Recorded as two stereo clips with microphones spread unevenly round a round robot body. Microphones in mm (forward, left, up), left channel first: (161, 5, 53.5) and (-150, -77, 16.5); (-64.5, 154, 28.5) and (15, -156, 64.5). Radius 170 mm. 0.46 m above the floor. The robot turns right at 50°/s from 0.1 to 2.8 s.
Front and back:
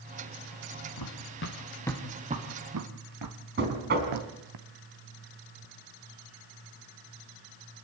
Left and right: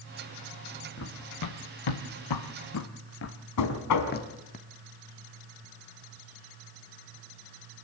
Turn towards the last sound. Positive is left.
turn(degrees=135)